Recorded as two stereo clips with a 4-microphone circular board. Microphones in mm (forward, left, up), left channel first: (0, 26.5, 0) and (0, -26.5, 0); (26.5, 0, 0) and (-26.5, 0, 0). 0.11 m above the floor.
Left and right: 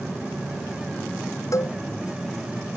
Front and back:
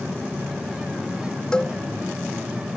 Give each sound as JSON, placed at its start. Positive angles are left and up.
{"t": 1.5, "sound": "a cowbell", "azimuth_deg": 70}